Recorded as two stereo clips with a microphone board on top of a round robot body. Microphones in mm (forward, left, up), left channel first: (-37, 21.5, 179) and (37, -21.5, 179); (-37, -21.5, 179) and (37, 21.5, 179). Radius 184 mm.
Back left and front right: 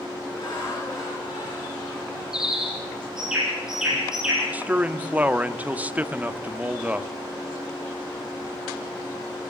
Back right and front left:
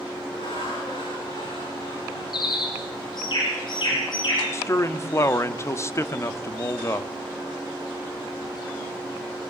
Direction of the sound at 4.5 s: 100° right.